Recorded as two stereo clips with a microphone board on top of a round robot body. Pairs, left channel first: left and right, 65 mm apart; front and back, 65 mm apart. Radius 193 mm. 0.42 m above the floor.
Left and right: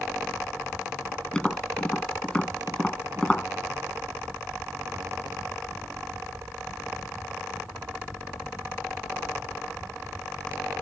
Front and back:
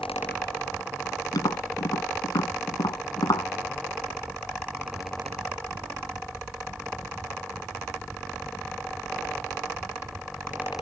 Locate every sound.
1.3 s tapping: 15° left